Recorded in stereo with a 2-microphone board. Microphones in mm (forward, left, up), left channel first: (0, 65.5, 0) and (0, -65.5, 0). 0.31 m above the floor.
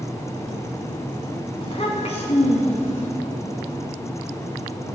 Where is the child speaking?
45° left (ahead or behind), 1.7 m; by 3.1 s 65° left (ahead or behind), 2.5 m.